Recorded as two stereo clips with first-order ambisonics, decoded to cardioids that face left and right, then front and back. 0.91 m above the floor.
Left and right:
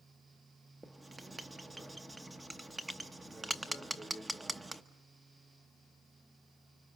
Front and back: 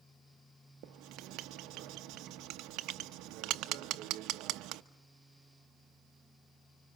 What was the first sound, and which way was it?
Writing, 170° right.